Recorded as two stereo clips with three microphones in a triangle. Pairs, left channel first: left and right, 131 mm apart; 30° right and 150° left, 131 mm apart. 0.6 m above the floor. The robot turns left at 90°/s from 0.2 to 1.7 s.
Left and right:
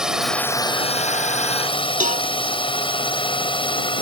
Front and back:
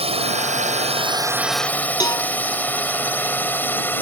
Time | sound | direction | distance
0.0 | a drone | 175° right | ?
2.0 | a cowbell | 90° right | ?